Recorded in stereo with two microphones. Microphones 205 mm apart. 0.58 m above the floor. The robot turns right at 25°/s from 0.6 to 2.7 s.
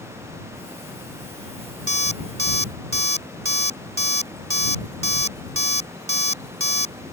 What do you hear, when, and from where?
1.9 s an alarm clock: 75° right (ahead or behind); by 7.0 s 85° right